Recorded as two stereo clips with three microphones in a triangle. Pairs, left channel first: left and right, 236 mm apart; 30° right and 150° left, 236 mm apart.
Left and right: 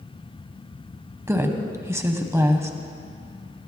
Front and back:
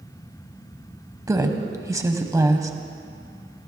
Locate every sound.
1.3 s a woman speaking: 150° right, 1.0 m